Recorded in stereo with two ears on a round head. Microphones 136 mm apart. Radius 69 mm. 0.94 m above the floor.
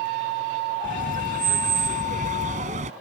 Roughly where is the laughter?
Right.